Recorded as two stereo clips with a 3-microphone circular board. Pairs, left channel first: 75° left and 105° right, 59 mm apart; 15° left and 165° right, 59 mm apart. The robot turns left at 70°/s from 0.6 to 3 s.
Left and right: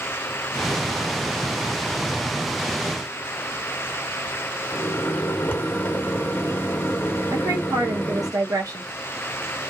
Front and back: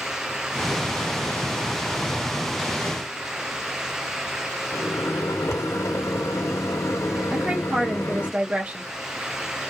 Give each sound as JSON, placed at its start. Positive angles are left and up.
{"t": 4.7, "sound": "a microwave", "azimuth_deg": 20, "distance_m": 0.8}
{"t": 7.3, "sound": "a woman speaking", "azimuth_deg": -100, "distance_m": 0.6}